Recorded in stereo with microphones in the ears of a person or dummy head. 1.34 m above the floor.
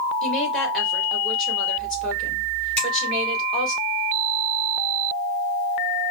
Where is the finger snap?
5° left (ahead or behind), 2.5 m.